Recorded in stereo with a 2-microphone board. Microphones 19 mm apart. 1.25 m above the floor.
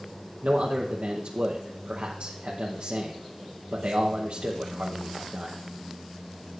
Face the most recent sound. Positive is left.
turn(degrees=-80)